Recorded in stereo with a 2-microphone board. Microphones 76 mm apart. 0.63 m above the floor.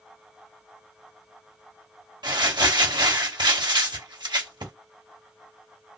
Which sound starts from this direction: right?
Crumpling, at 2.2 s.